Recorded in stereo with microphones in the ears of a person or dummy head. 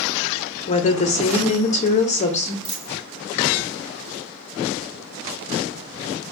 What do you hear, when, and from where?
0.7 s a woman speaking: 35° left (ahead or behind), 0.6 m
2.6 s a dropped coin: 30° right (ahead or behind), 1.8 m